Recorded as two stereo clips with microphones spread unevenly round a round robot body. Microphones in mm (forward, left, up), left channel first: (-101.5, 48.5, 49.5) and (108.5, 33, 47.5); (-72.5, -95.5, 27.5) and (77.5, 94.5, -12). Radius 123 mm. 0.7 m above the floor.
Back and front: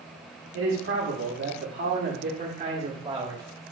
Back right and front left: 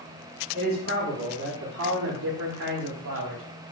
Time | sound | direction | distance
0.5 | a man speaking | 5° left | 1.9 m